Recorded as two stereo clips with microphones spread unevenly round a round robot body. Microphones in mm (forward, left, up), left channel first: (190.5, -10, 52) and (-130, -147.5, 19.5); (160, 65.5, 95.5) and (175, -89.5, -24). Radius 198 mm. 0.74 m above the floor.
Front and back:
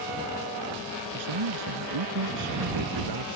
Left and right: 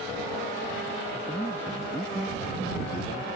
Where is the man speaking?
170° left.